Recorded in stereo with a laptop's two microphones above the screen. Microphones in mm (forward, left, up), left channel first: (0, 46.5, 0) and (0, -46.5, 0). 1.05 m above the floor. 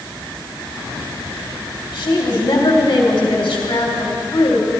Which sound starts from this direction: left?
A woman speaking, at 1.9 s.